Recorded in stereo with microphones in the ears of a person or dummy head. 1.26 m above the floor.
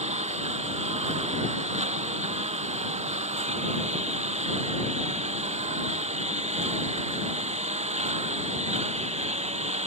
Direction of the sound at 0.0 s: 35° right (ahead or behind).